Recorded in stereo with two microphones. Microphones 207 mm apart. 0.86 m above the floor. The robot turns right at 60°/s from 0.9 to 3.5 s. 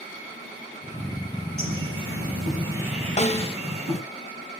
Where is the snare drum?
30° left (ahead or behind), 0.7 m; by 3.5 s 25° left (ahead or behind), 0.7 m.